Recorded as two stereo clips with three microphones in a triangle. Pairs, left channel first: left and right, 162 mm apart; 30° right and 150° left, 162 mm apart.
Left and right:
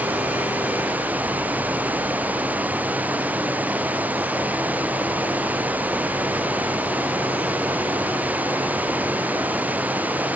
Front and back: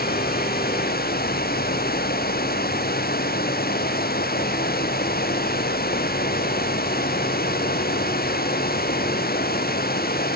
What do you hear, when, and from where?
0.0 s running water: 10° right